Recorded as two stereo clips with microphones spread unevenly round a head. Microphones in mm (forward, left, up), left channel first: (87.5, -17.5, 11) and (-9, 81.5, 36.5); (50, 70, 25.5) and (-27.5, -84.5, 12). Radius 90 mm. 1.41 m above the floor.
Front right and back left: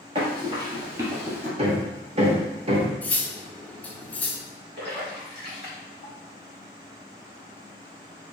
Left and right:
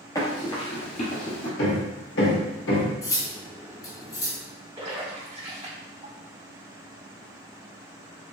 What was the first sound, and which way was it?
Running footsteps, 120° left.